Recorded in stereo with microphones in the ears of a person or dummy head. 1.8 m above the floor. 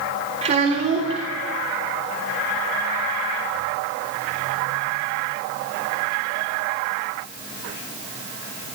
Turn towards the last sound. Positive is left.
turn(degrees=-40)  # may be behind; listen again after turning